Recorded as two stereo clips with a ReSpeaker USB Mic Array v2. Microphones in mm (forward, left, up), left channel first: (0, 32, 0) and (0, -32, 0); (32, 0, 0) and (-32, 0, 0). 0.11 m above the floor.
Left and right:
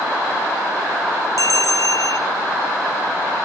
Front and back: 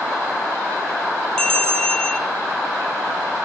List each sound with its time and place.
1.4 s a bell: 75° left, 1.2 m